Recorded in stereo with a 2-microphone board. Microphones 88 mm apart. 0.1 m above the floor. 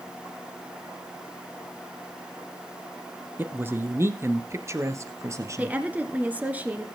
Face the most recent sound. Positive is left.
turn(degrees=-15)  # may be behind; listen again after turning